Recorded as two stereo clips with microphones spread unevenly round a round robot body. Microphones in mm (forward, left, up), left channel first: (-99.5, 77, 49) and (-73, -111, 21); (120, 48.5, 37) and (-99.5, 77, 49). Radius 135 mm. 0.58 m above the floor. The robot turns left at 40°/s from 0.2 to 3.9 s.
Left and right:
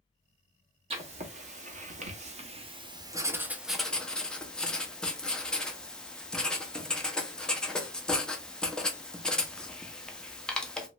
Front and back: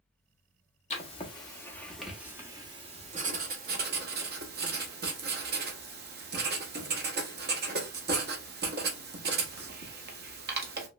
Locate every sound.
0.9 s writing: 50° right, 0.8 m; by 10.9 s 170° right, 0.8 m